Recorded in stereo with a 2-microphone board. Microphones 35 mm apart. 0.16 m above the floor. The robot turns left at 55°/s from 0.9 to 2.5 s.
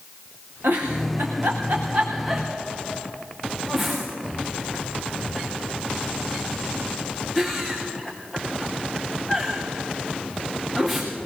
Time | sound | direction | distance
0.6 | a giggle | 85° right | 5 m